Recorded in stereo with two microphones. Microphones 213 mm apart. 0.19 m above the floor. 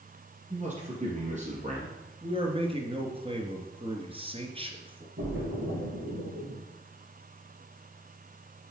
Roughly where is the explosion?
I don't hear an explosion.